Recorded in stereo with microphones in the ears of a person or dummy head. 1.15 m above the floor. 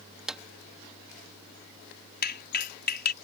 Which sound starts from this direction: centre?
A drawer, at 0.3 s.